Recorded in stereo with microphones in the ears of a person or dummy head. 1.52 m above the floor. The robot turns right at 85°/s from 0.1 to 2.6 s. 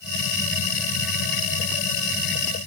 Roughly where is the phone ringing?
No phone ringing in this recording.